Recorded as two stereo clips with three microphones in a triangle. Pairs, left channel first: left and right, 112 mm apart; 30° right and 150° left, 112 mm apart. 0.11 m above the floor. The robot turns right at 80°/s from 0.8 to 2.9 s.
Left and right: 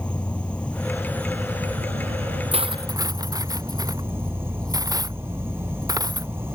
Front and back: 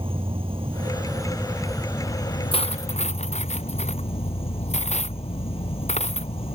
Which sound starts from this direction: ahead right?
Cutlery clinking, at 2.5 s.